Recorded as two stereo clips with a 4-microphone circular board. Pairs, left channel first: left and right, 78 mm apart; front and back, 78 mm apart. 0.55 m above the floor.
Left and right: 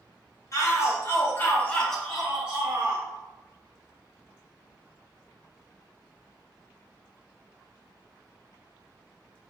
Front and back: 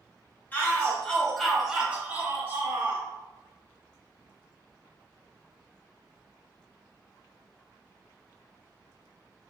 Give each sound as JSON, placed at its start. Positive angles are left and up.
{"t": 0.5, "sound": "a shout", "azimuth_deg": 60, "distance_m": 1.0}